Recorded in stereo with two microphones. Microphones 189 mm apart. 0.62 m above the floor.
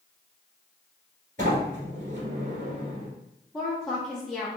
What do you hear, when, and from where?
1.4 s a sliding door: 45° right (ahead or behind), 1.7 m
3.5 s a woman speaking: centre (ahead or behind), 0.8 m